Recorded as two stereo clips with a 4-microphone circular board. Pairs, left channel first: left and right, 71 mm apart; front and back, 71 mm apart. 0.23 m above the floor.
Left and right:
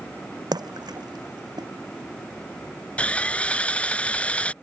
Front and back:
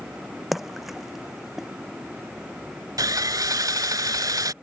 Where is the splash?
90° right.